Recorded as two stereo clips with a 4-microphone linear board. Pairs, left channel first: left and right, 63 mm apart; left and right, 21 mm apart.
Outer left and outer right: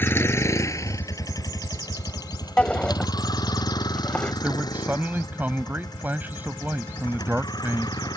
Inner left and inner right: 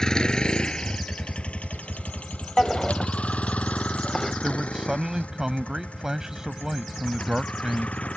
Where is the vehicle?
35° left (ahead or behind); by 8.2 s 75° left (ahead or behind).